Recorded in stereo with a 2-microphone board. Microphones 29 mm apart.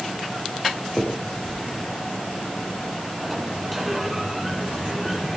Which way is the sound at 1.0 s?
30° left (ahead or behind).